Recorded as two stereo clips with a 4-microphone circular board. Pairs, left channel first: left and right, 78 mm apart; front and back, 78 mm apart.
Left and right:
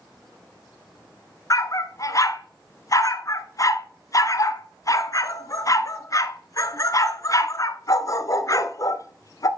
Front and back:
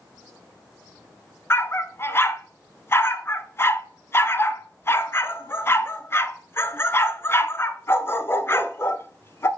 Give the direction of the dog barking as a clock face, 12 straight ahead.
10 o'clock.